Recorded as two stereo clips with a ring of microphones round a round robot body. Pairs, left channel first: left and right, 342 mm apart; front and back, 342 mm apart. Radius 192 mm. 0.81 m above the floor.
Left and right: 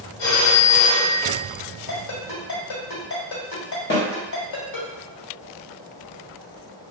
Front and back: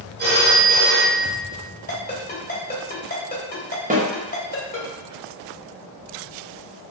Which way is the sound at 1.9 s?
65° left.